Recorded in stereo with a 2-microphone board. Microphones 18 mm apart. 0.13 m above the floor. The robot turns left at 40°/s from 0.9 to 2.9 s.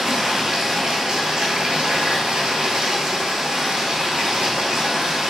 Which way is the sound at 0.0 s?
45° right.